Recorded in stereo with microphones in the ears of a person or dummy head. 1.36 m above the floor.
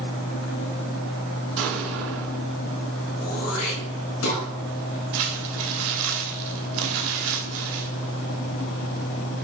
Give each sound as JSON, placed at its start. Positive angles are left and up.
{"t": 1.6, "sound": "an explosion", "side_deg": -75, "distance_m": 4.5}
{"t": 3.2, "sound": "throat clearing", "side_deg": 80, "distance_m": 5.0}
{"t": 5.1, "sound": "crumpling", "side_deg": -75, "distance_m": 2.5}